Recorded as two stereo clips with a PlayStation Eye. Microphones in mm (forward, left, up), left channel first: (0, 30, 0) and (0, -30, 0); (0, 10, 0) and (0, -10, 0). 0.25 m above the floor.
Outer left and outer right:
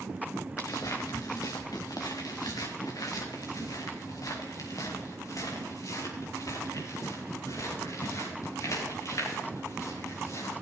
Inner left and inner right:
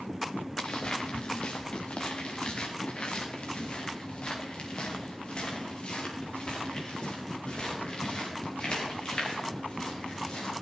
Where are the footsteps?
65° left (ahead or behind), 2 m; by 10.5 s 60° left (ahead or behind), 9 m.